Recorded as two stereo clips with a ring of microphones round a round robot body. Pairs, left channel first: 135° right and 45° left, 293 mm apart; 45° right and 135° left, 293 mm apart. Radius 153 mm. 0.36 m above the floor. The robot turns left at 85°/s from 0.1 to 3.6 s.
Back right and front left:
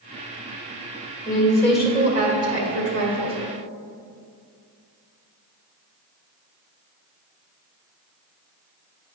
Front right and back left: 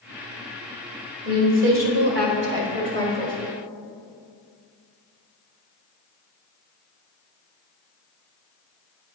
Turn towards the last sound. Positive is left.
turn(degrees=-25)